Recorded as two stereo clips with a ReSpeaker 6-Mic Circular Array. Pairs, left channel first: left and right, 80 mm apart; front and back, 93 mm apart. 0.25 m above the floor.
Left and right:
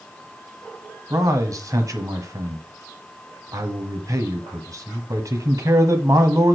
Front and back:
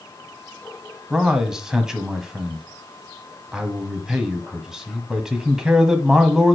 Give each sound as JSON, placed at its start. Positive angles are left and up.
{"t": 1.1, "sound": "a man speaking", "azimuth_deg": -100, "distance_m": 1.3}